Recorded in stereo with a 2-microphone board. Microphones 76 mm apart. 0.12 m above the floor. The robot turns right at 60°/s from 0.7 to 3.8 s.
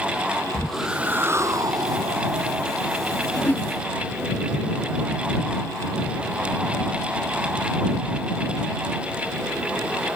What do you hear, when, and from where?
0.5 s a whoosh: straight behind; by 2.6 s 60° right
3.4 s a whoosh: 25° left (ahead or behind); by 3.7 s 20° left (ahead or behind)